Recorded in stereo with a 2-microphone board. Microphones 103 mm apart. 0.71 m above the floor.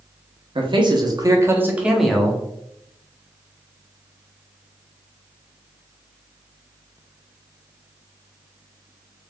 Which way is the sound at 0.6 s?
55° right (ahead or behind).